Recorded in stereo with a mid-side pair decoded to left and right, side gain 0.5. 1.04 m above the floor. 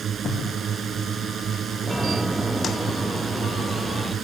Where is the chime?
5° left.